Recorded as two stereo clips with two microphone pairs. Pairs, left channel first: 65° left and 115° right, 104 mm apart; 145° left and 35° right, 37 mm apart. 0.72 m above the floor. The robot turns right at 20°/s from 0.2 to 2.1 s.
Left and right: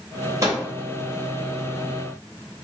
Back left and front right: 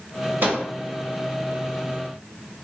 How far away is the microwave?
About 0.8 m.